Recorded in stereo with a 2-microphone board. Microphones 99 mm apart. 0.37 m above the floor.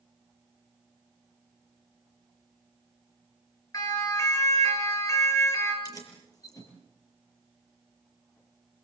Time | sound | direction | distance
3.7 | a siren | 35° left (ahead or behind) | 6.5 m
5.8 | keys jangling | 35° left (ahead or behind) | 6.5 m